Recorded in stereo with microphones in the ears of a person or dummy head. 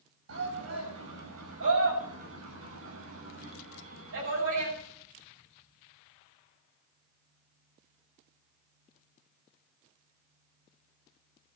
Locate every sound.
0.3 s a shout: 90° right, 8.5 m; by 4.7 s 75° right (ahead or behind), 10.5 m